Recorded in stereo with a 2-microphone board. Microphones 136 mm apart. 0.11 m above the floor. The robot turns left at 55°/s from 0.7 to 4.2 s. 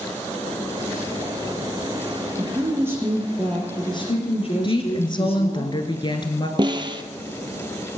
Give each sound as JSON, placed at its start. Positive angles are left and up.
{"t": 2.4, "sound": "a woman speaking", "azimuth_deg": -135, "distance_m": 3.0}
{"t": 4.6, "sound": "a woman speaking", "side_deg": 35, "distance_m": 1.3}
{"t": 6.6, "sound": "a snare drum", "side_deg": -35, "distance_m": 0.7}